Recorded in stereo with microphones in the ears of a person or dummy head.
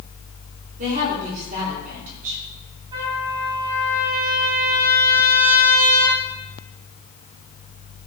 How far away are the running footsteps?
No running footsteps in this recording.